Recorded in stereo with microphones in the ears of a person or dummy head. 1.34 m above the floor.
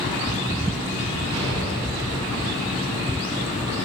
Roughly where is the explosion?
Right.